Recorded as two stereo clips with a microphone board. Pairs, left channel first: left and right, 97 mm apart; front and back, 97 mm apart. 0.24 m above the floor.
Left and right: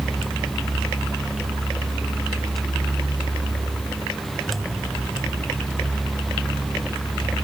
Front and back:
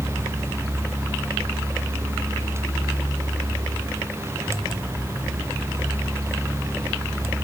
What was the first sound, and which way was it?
Only background noise.